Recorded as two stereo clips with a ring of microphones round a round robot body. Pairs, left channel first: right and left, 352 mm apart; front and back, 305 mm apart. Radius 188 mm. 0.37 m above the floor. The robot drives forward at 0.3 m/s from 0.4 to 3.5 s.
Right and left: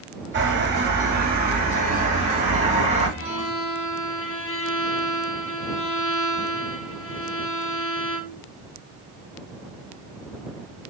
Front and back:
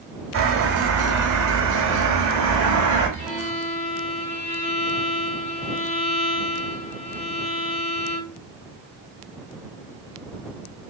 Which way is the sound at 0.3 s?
145° left.